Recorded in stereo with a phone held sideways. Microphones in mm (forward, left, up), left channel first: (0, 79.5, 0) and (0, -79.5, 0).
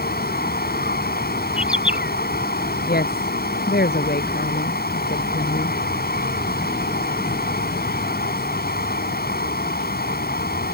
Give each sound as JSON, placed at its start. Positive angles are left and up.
{"t": 0.0, "sound": "running water", "side_deg": 70}
{"t": 1.6, "sound": "a bird", "side_deg": -5}
{"t": 2.9, "sound": "a woman speaking", "side_deg": 70}